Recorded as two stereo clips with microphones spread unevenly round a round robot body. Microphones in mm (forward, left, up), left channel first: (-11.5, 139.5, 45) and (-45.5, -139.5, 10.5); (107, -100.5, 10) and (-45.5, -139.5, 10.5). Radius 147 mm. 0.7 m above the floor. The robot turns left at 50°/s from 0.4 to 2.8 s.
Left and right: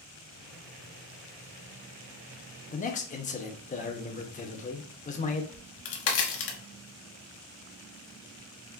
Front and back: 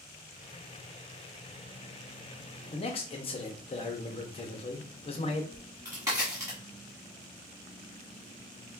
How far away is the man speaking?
About 0.7 m.